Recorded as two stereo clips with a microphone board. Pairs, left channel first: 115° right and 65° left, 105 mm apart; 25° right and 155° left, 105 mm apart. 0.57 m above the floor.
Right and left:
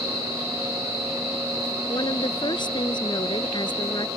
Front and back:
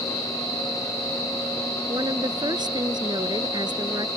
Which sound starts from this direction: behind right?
A woman speaking, at 1.9 s.